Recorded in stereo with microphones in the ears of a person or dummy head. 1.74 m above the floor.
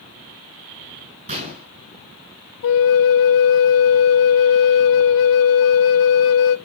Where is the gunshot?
45° right (ahead or behind), 6.5 m.